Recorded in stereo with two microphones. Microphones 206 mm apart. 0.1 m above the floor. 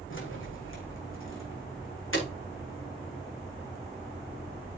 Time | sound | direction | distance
0.1 | keys jangling | 70° left (ahead or behind) | 4.5 m